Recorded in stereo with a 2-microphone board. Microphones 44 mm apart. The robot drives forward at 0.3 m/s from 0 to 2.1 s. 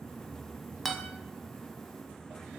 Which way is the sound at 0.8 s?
5° left (ahead or behind).